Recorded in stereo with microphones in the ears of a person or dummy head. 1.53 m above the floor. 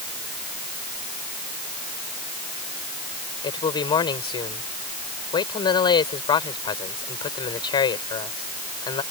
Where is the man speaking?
20° left (ahead or behind).